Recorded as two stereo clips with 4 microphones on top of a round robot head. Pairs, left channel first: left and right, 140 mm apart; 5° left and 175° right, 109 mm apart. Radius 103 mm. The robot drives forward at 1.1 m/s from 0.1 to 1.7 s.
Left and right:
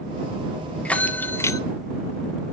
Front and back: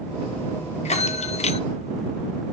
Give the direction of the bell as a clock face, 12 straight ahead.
12 o'clock.